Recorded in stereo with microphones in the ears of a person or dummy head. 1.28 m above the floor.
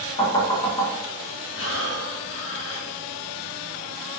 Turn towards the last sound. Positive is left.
turn(degrees=60)  # may be behind; listen again after turning